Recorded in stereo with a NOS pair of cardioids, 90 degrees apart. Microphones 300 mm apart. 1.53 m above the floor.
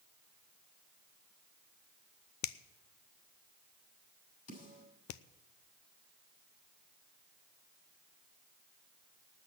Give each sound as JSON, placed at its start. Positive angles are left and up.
{"t": 2.4, "sound": "a finger snap", "azimuth_deg": 65, "distance_m": 0.6}
{"t": 4.5, "sound": "a snare drum", "azimuth_deg": 60, "distance_m": 7.0}